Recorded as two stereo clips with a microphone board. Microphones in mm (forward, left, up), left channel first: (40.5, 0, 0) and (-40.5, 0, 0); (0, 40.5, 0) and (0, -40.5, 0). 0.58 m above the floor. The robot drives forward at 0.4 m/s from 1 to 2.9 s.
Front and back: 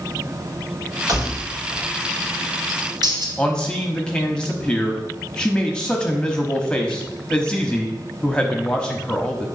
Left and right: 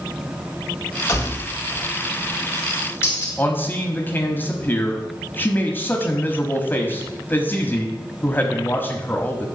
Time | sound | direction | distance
1.1 | keys jangling | 145° left | 3 m
3.4 | a man speaking | 65° left | 1.0 m